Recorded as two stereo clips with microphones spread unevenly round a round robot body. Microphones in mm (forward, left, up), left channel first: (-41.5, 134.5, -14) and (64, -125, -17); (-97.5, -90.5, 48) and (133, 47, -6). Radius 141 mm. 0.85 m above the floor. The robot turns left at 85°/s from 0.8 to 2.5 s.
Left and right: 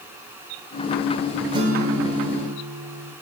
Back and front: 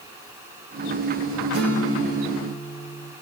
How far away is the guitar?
About 2.5 m.